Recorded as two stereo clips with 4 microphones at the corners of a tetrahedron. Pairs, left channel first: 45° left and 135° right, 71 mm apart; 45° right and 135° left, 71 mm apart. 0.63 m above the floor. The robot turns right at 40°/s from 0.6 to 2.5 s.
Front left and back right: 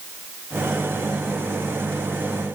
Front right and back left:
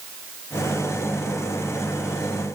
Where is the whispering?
No whispering in this recording.